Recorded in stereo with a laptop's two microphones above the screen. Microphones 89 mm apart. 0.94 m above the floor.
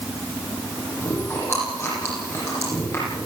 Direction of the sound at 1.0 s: 30° left (ahead or behind).